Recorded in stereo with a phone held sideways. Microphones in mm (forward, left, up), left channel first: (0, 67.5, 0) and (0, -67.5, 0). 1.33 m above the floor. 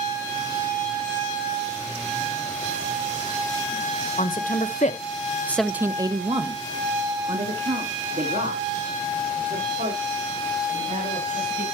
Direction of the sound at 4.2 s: 80° left.